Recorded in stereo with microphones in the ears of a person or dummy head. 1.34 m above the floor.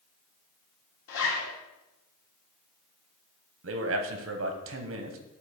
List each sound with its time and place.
1.1 s a zipper: 85° left, 2.5 m
3.6 s a man speaking: 60° right (ahead or behind), 1.1 m